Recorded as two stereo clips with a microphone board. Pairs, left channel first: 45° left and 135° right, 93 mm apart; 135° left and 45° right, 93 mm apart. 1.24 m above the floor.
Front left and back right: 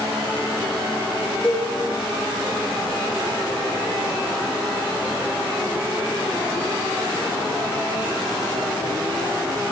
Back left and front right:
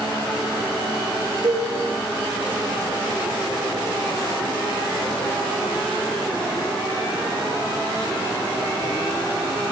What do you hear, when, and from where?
1.4 s a cowbell: 35° right, 5 m